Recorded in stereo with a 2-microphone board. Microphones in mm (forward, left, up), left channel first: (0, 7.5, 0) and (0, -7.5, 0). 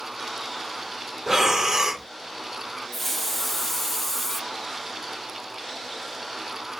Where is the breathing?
35° right (ahead or behind), 0.7 m.